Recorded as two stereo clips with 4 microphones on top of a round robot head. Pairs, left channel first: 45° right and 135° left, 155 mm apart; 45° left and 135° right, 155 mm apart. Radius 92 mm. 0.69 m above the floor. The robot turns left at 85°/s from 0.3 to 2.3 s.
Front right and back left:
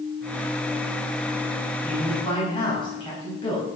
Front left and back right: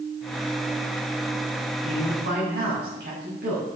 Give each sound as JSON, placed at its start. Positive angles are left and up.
{"t": 1.8, "sound": "a man speaking", "azimuth_deg": -65, "distance_m": 4.5}